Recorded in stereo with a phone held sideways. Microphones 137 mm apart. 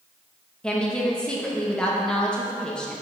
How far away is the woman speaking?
About 0.9 m.